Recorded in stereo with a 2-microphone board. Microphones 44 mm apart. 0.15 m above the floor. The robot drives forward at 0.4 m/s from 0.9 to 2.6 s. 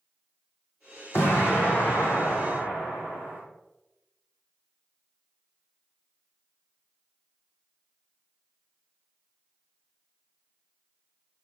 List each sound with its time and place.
1.1 s an explosion: 65° left (ahead or behind), 1.8 m; by 3.4 s 50° left (ahead or behind), 2 m